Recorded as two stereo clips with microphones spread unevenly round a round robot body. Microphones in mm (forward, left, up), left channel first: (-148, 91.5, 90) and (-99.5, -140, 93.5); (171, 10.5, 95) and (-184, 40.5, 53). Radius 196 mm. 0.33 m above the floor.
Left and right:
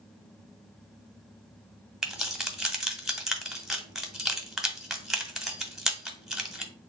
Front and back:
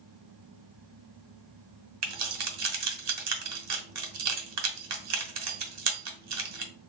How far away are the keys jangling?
About 1.1 m.